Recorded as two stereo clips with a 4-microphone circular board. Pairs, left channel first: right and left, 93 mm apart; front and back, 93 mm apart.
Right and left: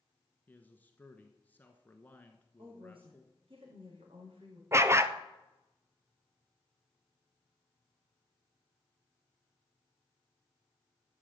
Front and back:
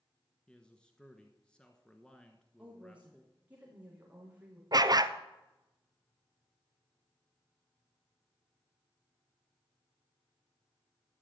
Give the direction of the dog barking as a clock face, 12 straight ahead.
7 o'clock.